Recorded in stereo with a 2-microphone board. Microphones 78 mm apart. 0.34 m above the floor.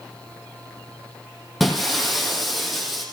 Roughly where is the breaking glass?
Centre.